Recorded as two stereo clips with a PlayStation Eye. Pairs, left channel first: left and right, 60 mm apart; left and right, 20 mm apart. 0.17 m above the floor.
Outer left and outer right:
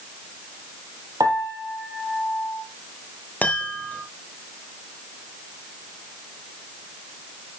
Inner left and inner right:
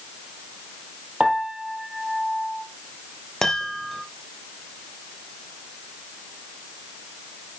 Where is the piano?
75° right (ahead or behind), 2 m.